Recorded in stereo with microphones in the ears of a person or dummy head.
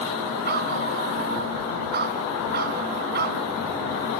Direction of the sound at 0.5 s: 55° right (ahead or behind).